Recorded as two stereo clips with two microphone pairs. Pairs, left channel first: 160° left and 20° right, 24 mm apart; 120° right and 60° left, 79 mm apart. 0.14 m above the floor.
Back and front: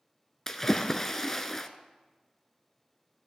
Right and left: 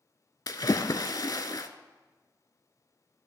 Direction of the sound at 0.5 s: 130° right.